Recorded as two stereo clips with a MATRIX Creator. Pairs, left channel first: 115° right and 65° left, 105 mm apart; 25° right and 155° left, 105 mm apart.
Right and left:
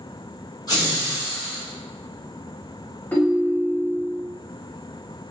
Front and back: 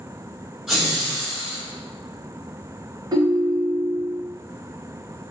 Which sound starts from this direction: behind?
A ringtone, at 3.1 s.